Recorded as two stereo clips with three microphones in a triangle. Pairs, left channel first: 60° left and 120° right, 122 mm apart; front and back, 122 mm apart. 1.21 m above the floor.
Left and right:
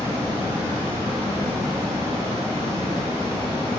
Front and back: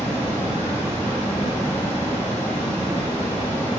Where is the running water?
65° right, 1.4 m.